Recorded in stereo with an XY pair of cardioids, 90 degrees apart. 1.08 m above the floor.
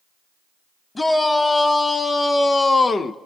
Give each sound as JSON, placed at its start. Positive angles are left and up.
{"t": 0.9, "sound": "a shout", "azimuth_deg": 25, "distance_m": 2.5}